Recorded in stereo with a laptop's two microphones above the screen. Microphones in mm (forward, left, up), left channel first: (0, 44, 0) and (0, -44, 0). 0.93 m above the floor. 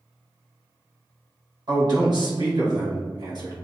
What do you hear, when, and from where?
1.7 s a man speaking: 55° right (ahead or behind), 1.0 m